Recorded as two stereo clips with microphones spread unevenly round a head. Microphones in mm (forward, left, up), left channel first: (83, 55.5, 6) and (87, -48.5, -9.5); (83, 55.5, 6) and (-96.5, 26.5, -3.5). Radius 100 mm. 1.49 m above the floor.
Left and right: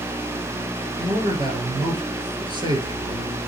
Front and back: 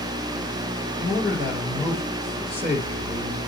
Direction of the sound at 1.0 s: 45° right.